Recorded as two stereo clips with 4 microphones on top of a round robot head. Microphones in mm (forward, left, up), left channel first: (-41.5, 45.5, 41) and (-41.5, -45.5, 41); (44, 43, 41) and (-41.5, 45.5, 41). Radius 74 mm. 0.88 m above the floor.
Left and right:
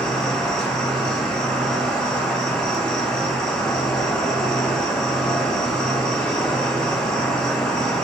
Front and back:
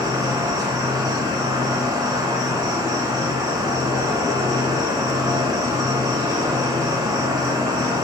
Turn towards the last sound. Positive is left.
turn(degrees=170)